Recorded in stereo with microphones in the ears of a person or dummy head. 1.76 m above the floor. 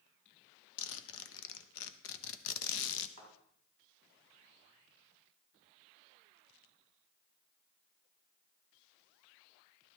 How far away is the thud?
About 6.5 m.